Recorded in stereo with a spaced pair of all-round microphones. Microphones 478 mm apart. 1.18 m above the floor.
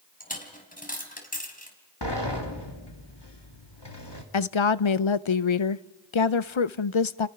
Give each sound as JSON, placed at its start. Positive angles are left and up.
{"t": 0.2, "sound": "a dropped coin", "side_deg": 15, "distance_m": 3.5}
{"t": 2.0, "sound": "a sliding door", "side_deg": 55, "distance_m": 2.5}
{"t": 4.3, "sound": "a woman speaking", "side_deg": 70, "distance_m": 0.7}